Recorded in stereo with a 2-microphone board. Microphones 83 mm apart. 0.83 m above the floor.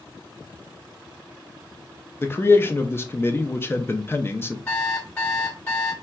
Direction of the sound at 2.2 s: 25° left (ahead or behind).